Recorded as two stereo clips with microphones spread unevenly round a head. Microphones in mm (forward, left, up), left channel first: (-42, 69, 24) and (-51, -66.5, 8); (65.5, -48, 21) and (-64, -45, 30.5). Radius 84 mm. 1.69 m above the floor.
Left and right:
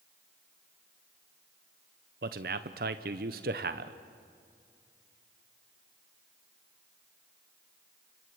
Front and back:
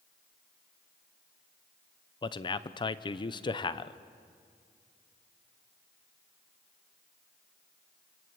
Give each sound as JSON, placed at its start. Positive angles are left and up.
{"t": 2.2, "sound": "a man speaking", "azimuth_deg": -55, "distance_m": 0.8}